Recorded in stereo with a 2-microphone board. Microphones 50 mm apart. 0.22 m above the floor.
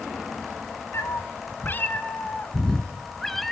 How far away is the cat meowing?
About 1.3 m.